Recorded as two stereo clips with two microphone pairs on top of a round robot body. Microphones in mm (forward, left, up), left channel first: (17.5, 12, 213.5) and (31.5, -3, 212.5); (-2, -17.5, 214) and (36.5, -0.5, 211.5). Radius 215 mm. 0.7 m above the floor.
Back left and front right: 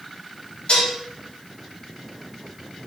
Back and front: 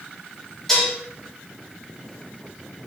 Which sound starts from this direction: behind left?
Dishes clattering, at 0.7 s.